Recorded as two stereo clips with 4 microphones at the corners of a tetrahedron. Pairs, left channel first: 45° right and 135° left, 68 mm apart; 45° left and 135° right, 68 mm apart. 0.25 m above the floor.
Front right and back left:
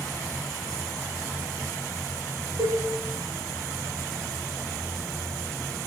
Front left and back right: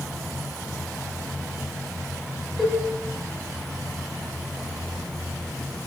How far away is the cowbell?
About 3 m.